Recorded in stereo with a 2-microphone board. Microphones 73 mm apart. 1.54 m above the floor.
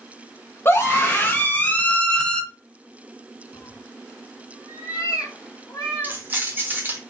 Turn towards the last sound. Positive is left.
turn(degrees=-25)  # may be behind; listen again after turning